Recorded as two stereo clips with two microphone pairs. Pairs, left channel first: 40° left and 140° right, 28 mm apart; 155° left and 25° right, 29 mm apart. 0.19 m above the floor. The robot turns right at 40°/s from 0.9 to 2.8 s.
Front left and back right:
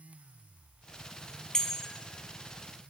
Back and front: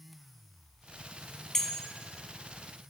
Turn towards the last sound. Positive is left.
turn(degrees=140)